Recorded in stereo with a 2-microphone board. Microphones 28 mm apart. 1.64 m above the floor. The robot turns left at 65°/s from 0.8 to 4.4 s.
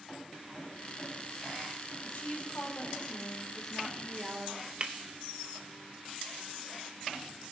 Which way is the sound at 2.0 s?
110° left.